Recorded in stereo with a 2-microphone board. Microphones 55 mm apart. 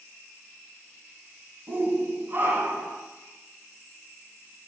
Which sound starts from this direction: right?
A shout, at 1.7 s.